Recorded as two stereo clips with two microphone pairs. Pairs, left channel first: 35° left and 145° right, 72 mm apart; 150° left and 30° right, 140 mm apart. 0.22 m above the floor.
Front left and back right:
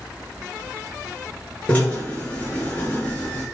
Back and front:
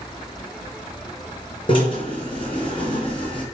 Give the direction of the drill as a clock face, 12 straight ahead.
9 o'clock.